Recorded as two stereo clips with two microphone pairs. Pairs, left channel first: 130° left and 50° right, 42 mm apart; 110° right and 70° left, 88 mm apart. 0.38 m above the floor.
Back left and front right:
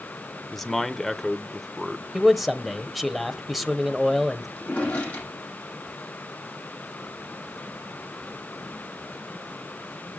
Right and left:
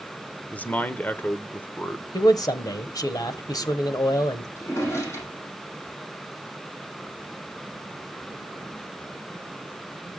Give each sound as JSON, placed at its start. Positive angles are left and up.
{"t": 0.5, "sound": "a man speaking", "azimuth_deg": -150, "distance_m": 1.0}
{"t": 2.1, "sound": "a man speaking", "azimuth_deg": -140, "distance_m": 1.3}
{"t": 4.6, "sound": "a drawer", "azimuth_deg": -170, "distance_m": 10.0}